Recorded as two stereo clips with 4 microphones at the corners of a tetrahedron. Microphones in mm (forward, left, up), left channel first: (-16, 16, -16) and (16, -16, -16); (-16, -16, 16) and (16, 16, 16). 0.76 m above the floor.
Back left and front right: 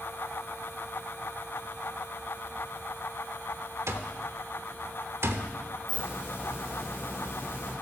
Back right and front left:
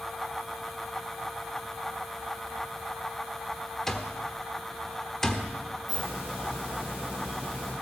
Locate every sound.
3.9 s an alarm clock: 55° right, 1.1 m
5.9 s a hiss: 110° left, 8.5 m